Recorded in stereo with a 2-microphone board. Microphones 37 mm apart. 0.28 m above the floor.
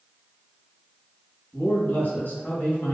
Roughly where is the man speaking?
Left.